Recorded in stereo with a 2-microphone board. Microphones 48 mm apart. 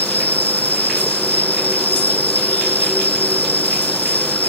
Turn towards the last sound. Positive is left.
turn(degrees=35)  # may be behind; listen again after turning